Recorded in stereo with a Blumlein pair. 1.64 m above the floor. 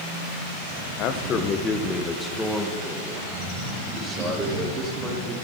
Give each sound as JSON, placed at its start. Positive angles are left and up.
{"t": 1.0, "sound": "a man speaking", "azimuth_deg": 40, "distance_m": 1.1}